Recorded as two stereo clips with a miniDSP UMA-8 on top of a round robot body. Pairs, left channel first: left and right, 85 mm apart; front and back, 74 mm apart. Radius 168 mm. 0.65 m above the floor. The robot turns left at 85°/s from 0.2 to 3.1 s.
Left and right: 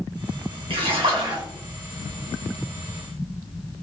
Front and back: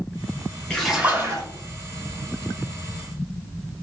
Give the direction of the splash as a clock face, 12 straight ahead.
3 o'clock.